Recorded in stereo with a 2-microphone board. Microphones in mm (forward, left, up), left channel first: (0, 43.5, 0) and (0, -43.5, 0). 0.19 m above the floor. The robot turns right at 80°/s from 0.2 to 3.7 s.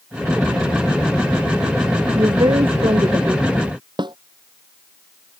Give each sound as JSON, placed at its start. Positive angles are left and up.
{"t": 2.1, "sound": "a woman speaking", "azimuth_deg": -135}
{"t": 4.0, "sound": "a snare drum", "side_deg": -65}